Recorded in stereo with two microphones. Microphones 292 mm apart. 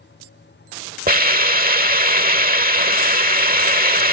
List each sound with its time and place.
1.1 s a hiss: 30° right (ahead or behind)